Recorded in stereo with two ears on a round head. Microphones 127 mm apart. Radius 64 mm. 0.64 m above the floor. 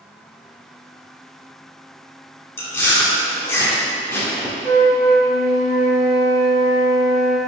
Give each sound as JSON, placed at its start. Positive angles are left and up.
{"t": 2.6, "sound": "chewing", "side_deg": 15, "distance_m": 1.1}
{"t": 4.6, "sound": "a flute", "side_deg": -75, "distance_m": 2.0}